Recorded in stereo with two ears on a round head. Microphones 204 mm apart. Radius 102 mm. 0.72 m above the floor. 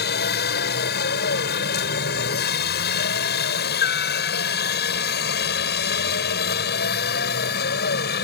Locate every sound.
0.0 s a helicopter: 45° left (ahead or behind)